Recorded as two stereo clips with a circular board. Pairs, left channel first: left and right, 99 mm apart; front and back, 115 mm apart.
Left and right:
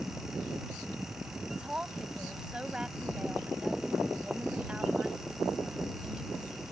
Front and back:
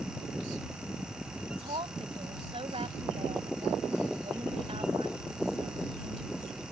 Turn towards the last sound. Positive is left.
turn(degrees=-170)